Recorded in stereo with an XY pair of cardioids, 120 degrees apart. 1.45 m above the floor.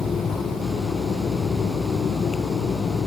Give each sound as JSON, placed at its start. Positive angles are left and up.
{"t": 0.0, "sound": "a fan", "azimuth_deg": 40}